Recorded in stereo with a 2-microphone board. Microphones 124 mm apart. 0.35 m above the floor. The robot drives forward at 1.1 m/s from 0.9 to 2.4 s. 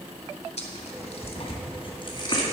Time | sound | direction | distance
0.6 | tearing paper | 60° left (ahead or behind) | 1.8 m